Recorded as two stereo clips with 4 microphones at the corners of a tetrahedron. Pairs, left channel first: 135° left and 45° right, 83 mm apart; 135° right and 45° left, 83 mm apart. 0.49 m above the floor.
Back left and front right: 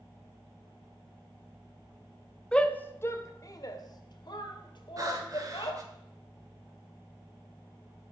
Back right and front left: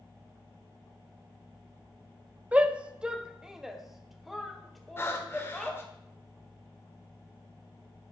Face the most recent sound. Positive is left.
turn(degrees=-80)